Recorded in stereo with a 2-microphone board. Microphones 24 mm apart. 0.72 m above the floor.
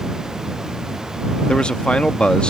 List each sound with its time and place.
1.5 s a man speaking: 45° left (ahead or behind)